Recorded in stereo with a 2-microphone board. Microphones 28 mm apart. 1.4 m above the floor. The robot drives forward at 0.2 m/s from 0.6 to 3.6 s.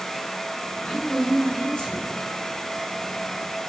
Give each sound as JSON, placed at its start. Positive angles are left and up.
{"t": 0.8, "sound": "a woman speaking", "side_deg": 35, "distance_m": 0.8}